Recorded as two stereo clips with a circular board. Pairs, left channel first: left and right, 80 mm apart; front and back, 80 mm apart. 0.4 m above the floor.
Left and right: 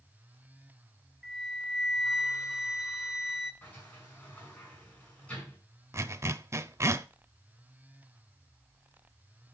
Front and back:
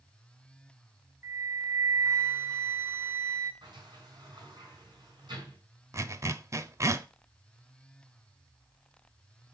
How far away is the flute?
About 1.4 m.